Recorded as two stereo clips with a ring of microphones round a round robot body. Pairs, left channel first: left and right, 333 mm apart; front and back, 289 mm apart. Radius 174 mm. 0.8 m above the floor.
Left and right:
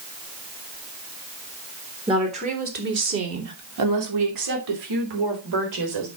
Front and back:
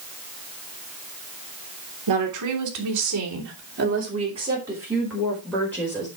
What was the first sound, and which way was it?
A woman speaking, 165° right.